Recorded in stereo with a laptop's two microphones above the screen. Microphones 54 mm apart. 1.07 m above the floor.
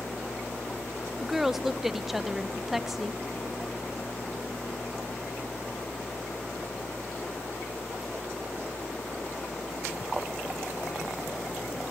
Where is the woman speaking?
5° right (ahead or behind), 0.6 m.